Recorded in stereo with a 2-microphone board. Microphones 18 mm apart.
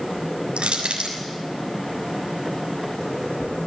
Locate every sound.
0.6 s crushing: 80° right, 6.5 m